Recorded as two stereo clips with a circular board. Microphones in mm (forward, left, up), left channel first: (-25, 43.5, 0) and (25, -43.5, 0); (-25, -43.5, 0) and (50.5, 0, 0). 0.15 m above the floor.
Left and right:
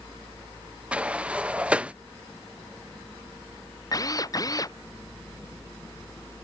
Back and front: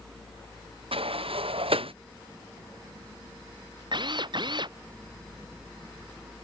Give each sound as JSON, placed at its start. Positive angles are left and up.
{"t": 0.9, "sound": "a sliding door", "azimuth_deg": 20}
{"t": 3.9, "sound": "a drill", "azimuth_deg": 65}